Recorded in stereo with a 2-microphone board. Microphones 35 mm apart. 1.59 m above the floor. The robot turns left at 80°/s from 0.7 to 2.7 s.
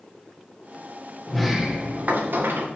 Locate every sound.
1.3 s a sliding door: 10° left, 1.7 m; by 2.7 s 100° right, 1.7 m